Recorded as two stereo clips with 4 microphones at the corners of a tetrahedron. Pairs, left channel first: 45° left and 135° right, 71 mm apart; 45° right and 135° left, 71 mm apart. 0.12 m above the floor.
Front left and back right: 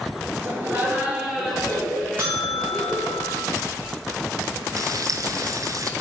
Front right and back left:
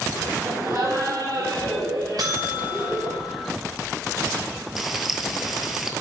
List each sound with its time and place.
0.4 s laughter: 175° left, 3 m; by 3.2 s 110° left, 5 m
2.2 s a buzzer: 165° left, 2.5 m
4.8 s frying: 140° right, 0.9 m